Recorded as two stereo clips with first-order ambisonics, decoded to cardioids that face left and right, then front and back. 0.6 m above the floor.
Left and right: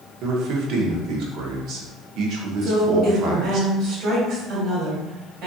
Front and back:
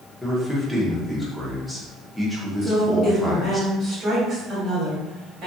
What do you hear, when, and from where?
0.2 s a man speaking: 90° right, 0.8 m
2.6 s a woman speaking: 130° right, 1.8 m